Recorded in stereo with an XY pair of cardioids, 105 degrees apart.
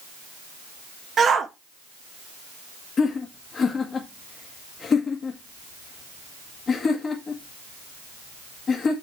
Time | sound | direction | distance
1.2 | a shout | 45° right | 1.3 m
3.0 | laughter | 40° left | 1.5 m